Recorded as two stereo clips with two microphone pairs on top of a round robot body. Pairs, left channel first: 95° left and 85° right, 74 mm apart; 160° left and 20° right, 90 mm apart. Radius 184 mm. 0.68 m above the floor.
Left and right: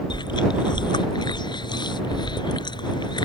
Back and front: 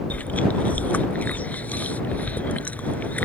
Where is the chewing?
85° left.